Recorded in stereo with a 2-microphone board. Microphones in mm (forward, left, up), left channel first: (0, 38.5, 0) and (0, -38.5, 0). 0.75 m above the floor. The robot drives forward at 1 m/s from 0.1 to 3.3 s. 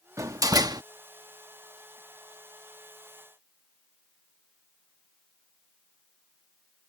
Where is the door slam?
45° right (ahead or behind); by 0.8 s 55° right (ahead or behind).